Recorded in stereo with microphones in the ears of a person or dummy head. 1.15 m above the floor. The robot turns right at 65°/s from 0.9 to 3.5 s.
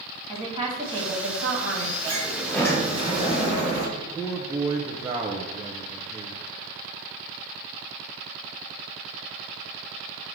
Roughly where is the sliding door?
Ahead right.